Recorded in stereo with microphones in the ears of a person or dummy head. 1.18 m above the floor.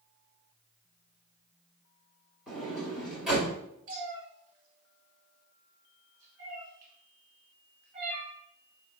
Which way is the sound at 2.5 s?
Centre (ahead or behind).